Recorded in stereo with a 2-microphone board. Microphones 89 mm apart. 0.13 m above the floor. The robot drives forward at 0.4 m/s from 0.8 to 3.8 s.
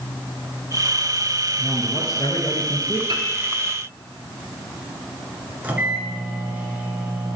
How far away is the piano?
About 1.3 m.